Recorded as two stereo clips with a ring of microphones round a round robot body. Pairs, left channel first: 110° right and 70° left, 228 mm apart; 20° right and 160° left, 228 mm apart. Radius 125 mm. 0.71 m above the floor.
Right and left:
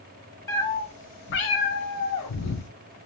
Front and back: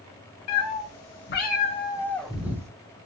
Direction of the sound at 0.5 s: 35° right.